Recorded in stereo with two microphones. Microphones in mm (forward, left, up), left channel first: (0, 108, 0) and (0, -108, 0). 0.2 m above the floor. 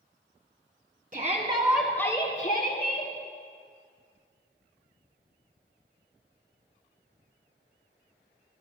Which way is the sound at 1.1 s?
45° right (ahead or behind).